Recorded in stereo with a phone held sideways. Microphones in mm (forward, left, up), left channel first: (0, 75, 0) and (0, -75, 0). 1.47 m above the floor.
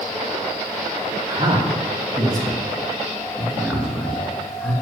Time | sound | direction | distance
1.3 | a man speaking | 35° right (ahead or behind) | 3 m